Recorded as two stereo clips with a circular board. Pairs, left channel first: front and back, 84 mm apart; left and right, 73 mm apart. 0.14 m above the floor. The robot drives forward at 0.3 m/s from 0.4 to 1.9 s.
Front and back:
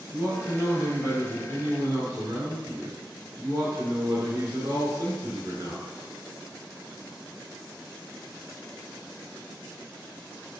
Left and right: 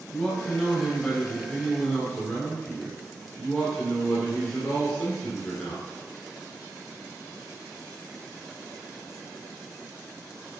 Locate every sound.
0.1 s a man speaking: 165° left, 1.5 m; by 5.9 s 170° left, 1.8 m